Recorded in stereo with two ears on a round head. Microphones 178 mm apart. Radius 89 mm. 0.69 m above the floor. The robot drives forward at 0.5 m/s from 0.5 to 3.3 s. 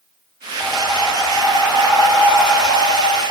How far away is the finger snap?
No finger snap in this recording.